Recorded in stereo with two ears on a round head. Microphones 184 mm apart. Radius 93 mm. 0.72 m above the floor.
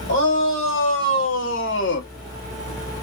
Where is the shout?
60° left (ahead or behind), 3.5 m; by 2.1 s 50° left (ahead or behind), 0.9 m.